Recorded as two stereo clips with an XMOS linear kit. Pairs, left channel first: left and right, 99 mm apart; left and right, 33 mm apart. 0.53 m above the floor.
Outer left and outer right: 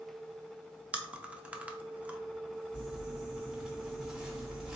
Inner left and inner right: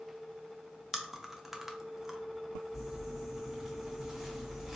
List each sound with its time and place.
0.9 s chewing: 15° right (ahead or behind), 0.5 m
2.7 s crumpling: 10° right (ahead or behind), 1.1 m